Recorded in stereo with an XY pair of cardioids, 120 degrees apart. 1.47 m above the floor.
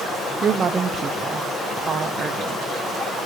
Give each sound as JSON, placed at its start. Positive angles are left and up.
{"t": 0.4, "sound": "a woman speaking", "azimuth_deg": -40, "distance_m": 0.5}